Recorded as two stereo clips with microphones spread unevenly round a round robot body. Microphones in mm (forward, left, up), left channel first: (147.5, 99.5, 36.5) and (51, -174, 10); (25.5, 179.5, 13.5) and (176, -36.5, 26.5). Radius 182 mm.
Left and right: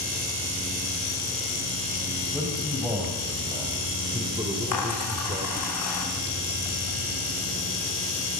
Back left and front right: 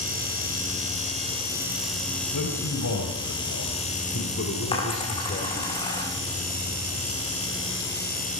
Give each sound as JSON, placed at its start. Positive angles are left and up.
{"t": 2.3, "sound": "a man speaking", "azimuth_deg": 165, "distance_m": 3.5}
{"t": 4.7, "sound": "a dropped coin", "azimuth_deg": 55, "distance_m": 9.0}